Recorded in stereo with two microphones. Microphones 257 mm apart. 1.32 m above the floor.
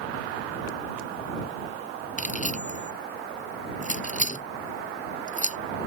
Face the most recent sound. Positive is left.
turn(degrees=30)  # may be behind; listen again after turning